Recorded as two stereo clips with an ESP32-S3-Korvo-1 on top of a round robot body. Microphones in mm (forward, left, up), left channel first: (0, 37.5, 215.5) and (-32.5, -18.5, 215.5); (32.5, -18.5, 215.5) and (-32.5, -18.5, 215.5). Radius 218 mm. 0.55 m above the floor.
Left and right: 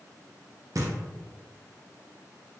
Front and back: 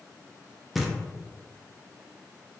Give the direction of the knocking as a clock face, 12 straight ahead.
3 o'clock.